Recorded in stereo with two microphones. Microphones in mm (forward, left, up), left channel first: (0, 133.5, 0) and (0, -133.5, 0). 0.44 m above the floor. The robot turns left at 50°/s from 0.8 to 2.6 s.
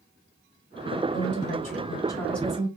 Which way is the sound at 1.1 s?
65° left.